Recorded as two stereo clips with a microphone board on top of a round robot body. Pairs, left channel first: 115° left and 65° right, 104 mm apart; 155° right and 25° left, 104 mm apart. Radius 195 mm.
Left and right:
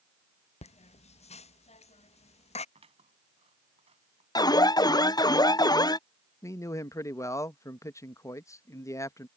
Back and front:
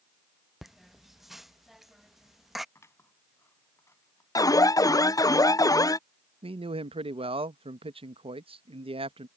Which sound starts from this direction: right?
Scissors, at 2.8 s.